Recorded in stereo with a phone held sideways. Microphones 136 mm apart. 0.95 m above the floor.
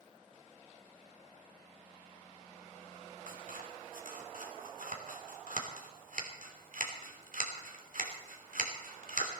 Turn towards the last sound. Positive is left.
turn(degrees=-80)